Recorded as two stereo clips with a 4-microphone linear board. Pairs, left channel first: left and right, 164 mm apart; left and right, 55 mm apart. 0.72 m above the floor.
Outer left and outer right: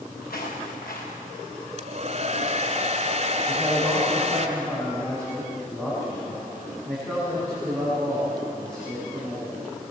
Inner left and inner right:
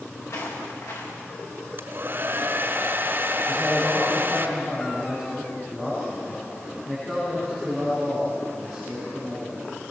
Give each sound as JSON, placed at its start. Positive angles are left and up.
{"t": 0.2, "sound": "footsteps", "side_deg": 75, "distance_m": 5.5}
{"t": 1.8, "sound": "a hair dryer", "side_deg": -50, "distance_m": 1.5}
{"t": 3.5, "sound": "a man speaking", "side_deg": 5, "distance_m": 6.0}